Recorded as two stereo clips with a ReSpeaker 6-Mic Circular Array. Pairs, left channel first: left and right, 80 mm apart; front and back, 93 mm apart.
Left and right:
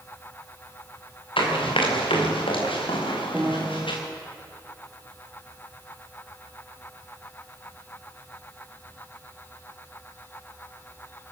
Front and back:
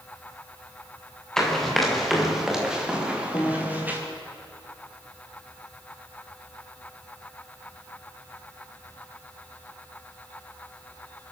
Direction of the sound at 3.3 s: 15° right.